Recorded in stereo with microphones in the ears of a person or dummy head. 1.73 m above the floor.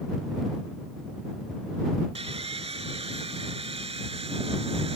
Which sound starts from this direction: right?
Sawing, at 2.1 s.